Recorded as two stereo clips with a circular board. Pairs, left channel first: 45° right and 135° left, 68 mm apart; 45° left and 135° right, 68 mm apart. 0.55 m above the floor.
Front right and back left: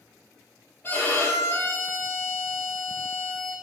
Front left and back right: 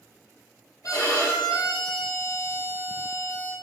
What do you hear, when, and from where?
0.8 s a violin: 15° left, 3 m